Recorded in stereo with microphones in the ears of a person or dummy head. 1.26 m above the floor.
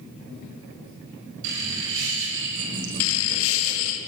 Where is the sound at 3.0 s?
75° left (ahead or behind), 1.5 m.